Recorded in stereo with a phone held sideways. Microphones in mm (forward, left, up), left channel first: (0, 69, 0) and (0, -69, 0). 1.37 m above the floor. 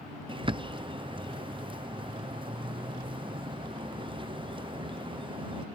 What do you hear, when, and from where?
0.3 s a bird: 35° right (ahead or behind)